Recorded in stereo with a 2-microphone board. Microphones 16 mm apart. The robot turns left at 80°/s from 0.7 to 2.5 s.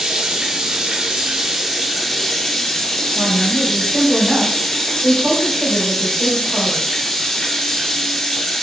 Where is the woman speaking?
35° right (ahead or behind), 1.8 m.